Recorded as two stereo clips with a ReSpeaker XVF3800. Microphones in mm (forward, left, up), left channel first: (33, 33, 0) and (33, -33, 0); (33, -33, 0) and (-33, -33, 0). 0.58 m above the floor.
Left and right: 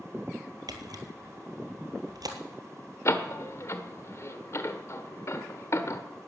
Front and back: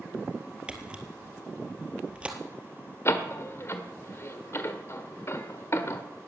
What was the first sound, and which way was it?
A camera shutter, 105° right.